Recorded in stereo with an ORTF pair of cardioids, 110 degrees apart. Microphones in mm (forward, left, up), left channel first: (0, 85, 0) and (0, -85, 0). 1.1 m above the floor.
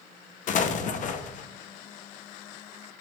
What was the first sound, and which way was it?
An explosion, 50° left.